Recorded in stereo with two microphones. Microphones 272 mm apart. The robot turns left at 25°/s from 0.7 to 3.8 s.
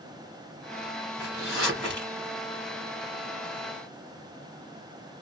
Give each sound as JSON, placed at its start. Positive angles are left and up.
{"t": 1.2, "sound": "a zipper", "side_deg": -10, "distance_m": 2.0}